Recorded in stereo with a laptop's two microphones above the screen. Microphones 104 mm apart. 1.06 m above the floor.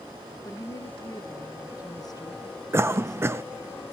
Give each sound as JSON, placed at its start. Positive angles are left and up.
{"t": 0.5, "sound": "a woman speaking", "side_deg": 40, "distance_m": 0.8}
{"t": 2.7, "sound": "a cough", "side_deg": -25, "distance_m": 0.5}